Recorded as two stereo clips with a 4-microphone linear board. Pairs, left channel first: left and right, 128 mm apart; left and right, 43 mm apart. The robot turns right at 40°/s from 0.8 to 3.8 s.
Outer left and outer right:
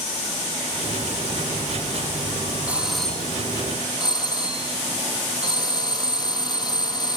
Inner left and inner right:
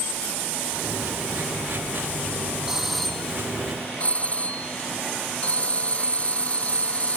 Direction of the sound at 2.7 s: 10° right.